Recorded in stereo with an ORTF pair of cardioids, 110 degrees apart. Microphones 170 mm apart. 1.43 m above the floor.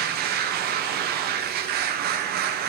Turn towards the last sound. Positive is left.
turn(degrees=-65)